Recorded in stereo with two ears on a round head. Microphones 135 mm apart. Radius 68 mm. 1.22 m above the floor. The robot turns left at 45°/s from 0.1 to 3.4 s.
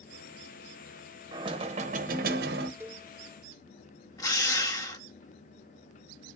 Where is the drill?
25° left (ahead or behind), 0.9 m.